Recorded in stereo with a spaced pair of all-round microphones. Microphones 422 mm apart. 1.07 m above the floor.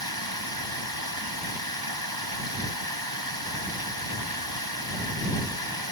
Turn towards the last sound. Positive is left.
turn(degrees=-65)  # may be behind; listen again after turning